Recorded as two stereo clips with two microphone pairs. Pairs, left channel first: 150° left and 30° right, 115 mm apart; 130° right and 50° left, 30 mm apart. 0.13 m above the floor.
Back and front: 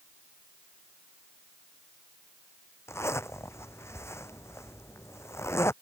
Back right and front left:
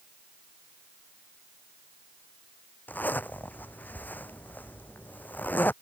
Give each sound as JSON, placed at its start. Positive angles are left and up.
{"t": 2.9, "sound": "a zipper", "azimuth_deg": -145}